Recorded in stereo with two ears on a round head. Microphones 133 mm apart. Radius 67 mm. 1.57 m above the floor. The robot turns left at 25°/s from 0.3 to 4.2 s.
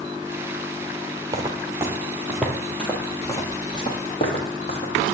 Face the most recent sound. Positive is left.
turn(degrees=50)  # may be behind; listen again after turning